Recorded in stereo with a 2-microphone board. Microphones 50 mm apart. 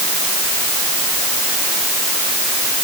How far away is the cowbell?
I don't hear a cowbell.